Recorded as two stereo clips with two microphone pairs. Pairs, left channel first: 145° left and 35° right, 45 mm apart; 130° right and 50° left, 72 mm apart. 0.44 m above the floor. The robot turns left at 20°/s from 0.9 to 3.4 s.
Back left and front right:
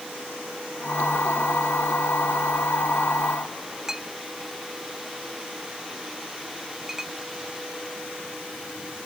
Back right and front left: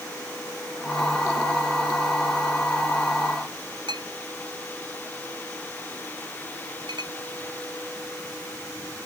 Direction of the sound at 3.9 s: 45° left.